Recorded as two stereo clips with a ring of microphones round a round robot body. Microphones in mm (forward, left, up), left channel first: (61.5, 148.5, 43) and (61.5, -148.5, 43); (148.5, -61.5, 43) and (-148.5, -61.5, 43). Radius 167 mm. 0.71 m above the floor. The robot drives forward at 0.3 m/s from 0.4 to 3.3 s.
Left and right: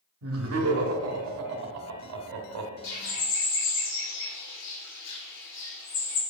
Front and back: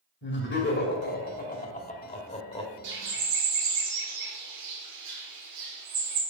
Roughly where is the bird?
Behind left.